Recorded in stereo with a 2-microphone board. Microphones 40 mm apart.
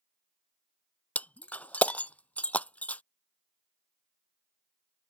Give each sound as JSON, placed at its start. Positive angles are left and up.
{"t": 1.1, "sound": "breaking glass", "side_deg": 40}